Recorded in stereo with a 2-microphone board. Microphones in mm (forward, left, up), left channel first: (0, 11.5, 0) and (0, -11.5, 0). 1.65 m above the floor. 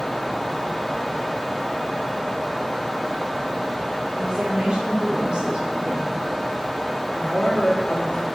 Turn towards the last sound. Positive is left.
turn(degrees=45)  # may be behind; listen again after turning